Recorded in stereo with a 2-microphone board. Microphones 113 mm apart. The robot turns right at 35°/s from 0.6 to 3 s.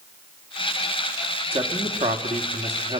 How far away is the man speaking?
About 2.5 m.